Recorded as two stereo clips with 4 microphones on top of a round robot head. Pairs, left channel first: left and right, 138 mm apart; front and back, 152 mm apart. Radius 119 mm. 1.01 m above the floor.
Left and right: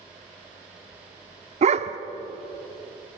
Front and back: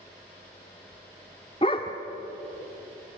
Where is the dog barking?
65° right, 0.8 m.